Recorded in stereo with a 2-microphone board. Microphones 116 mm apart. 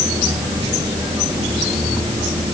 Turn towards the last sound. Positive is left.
No sound to turn to.